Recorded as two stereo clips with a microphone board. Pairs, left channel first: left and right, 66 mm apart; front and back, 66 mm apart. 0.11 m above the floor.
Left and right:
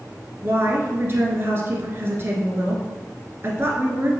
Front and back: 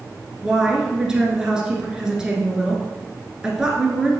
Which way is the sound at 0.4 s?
105° right.